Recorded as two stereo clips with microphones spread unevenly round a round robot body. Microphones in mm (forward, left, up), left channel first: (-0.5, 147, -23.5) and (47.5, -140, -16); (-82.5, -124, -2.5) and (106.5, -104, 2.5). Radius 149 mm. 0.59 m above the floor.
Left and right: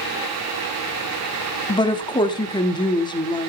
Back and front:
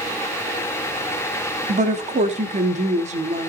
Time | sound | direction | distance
1.7 | a woman speaking | 35° left | 0.9 m